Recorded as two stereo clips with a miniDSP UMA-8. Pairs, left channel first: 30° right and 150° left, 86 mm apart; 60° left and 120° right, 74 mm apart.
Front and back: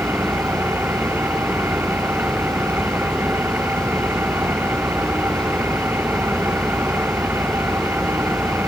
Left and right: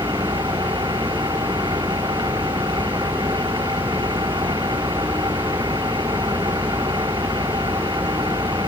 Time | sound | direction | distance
0.0 | an engine running | 145° right | ?